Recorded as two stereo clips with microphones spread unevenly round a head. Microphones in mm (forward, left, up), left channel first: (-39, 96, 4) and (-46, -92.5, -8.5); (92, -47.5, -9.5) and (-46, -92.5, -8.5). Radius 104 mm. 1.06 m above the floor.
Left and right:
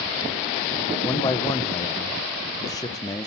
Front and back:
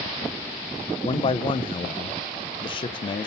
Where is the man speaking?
25° left, 0.6 m.